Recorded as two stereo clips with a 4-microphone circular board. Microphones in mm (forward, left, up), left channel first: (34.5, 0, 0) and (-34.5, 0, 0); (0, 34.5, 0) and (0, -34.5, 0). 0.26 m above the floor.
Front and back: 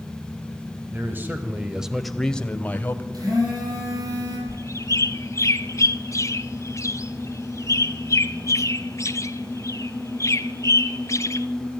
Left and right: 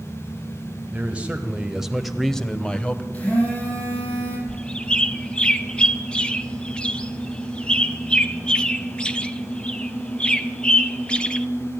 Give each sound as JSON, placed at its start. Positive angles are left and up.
{"t": 0.9, "sound": "a man speaking", "azimuth_deg": -150, "distance_m": 1.6}
{"t": 3.1, "sound": "a phone buzzing", "azimuth_deg": 160, "distance_m": 7.5}
{"t": 4.5, "sound": "a bird", "azimuth_deg": 20, "distance_m": 1.0}